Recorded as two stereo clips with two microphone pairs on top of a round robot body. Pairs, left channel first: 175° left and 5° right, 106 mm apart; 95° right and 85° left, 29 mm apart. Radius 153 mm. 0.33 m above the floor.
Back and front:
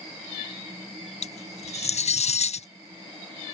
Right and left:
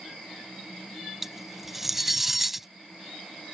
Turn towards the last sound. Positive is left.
turn(degrees=170)